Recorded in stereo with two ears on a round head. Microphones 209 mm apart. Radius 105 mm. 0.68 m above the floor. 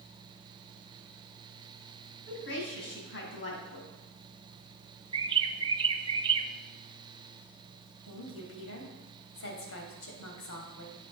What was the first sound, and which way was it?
A woman speaking, 55° left (ahead or behind).